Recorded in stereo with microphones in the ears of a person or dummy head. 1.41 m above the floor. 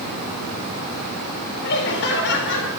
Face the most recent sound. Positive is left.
turn(degrees=60)  # may be behind; listen again after turning